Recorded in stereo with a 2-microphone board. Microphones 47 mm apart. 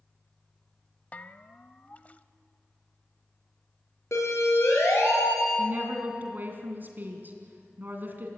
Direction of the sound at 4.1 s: 75° left (ahead or behind).